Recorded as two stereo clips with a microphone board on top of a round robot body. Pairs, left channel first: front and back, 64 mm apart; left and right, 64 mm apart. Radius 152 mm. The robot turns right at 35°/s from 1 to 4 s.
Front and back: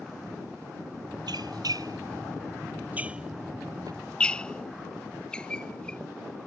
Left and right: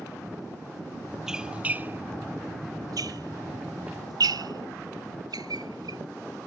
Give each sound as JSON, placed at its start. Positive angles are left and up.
{"t": 1.3, "sound": "a squeak", "azimuth_deg": -175}